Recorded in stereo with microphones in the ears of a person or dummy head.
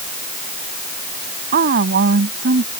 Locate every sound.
1.5 s a woman speaking: 60° right (ahead or behind); by 2.7 s 65° right (ahead or behind)